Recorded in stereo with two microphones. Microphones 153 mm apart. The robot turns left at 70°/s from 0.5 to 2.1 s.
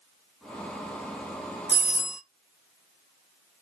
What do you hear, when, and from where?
1.7 s a doorbell: 25° left (ahead or behind), 1.5 m; by 2.2 s 30° left (ahead or behind), 1.5 m